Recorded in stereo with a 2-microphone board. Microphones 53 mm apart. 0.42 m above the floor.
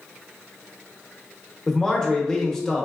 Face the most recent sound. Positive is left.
turn(degrees=10)  # may be behind; listen again after turning